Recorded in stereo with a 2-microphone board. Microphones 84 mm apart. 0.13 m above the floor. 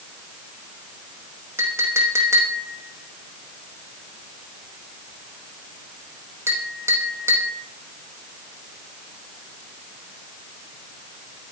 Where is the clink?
30° right (ahead or behind), 5 m.